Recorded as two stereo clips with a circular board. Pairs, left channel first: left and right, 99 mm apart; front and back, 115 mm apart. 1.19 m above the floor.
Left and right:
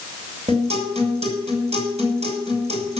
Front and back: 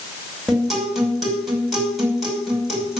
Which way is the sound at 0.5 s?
90° right.